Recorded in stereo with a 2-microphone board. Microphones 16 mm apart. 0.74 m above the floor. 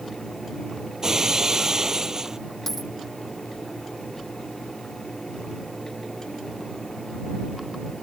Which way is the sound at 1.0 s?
30° right (ahead or behind).